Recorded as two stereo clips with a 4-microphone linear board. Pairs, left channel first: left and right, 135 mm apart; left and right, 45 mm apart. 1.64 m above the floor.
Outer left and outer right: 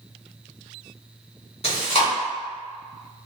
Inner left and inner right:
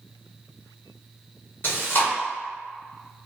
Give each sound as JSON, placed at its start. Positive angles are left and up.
{"t": 1.6, "sound": "chewing", "side_deg": 50, "distance_m": 1.4}